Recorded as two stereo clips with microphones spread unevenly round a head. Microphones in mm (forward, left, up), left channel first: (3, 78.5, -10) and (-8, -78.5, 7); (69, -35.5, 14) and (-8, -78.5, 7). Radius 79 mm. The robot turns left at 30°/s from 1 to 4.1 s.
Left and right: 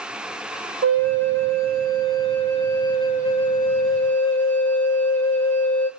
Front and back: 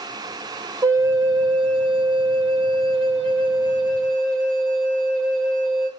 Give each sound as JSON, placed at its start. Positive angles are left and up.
{"t": 0.8, "sound": "a flute", "azimuth_deg": -100, "distance_m": 0.8}